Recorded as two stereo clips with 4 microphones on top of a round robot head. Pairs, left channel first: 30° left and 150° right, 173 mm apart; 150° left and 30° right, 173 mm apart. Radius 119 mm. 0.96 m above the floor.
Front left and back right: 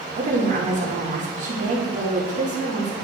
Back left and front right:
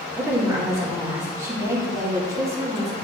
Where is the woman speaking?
105° right, 2 m.